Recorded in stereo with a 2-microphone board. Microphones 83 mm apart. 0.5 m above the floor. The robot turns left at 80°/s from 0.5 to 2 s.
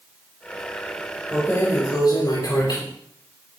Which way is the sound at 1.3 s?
160° left.